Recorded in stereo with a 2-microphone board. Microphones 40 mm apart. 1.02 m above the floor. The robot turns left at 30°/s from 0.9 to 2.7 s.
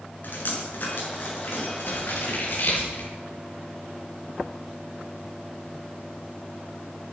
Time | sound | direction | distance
0.2 | dripping | 50° left (ahead or behind) | 8 m
1.9 | scissors | 50° left (ahead or behind) | 9 m